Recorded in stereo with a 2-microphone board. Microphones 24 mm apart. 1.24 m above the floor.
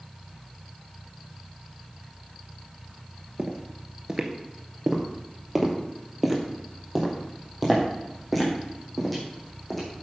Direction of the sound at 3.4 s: 25° right (ahead or behind).